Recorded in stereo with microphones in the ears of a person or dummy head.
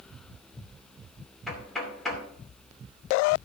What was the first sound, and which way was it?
Knocking, centre (ahead or behind).